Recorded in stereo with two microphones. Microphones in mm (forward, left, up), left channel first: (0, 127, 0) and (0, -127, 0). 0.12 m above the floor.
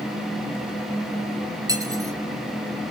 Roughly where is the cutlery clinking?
Centre.